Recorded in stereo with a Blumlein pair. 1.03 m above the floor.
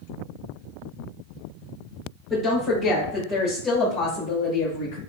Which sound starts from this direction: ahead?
A woman speaking, at 2.3 s.